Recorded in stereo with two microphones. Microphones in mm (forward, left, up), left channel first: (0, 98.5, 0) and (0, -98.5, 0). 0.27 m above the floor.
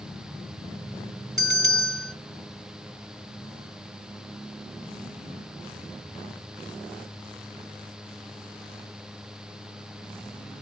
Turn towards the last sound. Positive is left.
turn(degrees=-20)  # may be behind; listen again after turning